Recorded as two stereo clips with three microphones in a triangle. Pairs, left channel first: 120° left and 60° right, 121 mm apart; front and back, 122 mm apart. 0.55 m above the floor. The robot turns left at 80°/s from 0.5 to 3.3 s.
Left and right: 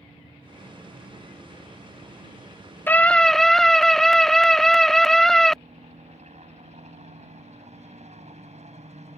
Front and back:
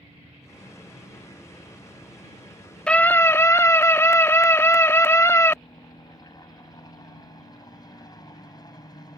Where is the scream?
70° left; by 5.6 s 35° left.